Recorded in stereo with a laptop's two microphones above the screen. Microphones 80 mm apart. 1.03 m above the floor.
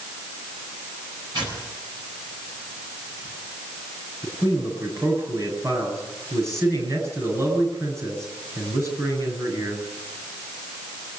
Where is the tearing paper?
65° right (ahead or behind), 9.5 m.